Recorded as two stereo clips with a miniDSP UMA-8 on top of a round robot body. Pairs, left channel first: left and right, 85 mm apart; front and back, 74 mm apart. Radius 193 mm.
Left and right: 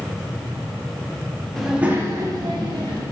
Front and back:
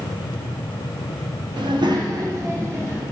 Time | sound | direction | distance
1.6 | a child speaking | 175° left | 0.7 m